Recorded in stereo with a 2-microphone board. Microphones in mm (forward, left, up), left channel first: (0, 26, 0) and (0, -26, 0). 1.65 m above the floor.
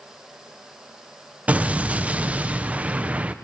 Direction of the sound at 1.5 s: 25° right (ahead or behind).